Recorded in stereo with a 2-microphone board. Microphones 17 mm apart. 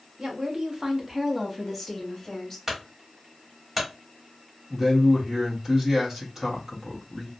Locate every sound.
0.2 s a woman speaking: 40° right (ahead or behind), 0.9 m; by 2.6 s 10° left (ahead or behind), 1.2 m
2.7 s a clunk: 20° right (ahead or behind), 1.1 m
4.7 s a man speaking: 30° right (ahead or behind), 1.2 m